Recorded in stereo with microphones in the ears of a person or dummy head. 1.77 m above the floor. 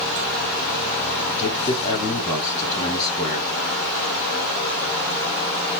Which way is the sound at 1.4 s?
15° left (ahead or behind).